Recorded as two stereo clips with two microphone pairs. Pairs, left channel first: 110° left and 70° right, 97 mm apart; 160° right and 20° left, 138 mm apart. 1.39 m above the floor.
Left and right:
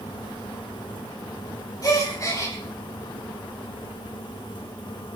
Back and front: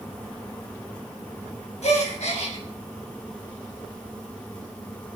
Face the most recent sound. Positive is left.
turn(degrees=165)